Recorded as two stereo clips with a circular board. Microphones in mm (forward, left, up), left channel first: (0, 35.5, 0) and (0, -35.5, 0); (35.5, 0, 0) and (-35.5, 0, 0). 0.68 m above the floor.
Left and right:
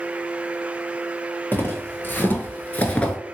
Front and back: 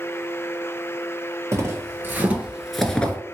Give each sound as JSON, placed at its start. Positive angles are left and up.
{"t": 1.5, "sound": "footsteps", "azimuth_deg": 145, "distance_m": 1.1}